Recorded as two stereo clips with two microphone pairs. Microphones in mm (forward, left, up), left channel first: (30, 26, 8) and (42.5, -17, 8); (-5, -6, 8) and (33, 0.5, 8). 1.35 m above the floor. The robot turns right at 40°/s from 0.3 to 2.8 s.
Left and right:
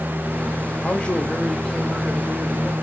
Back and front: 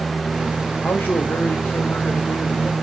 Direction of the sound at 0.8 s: 160° left.